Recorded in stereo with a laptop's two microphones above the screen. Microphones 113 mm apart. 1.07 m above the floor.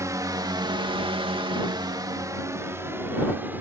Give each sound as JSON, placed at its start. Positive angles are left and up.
{"t": 0.0, "sound": "a drone", "side_deg": -30}